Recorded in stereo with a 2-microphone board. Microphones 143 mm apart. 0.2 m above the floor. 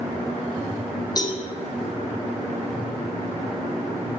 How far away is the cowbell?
About 2 m.